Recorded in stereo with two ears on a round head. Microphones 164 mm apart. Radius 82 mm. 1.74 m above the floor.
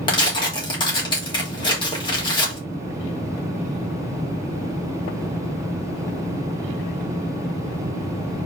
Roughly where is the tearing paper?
Left.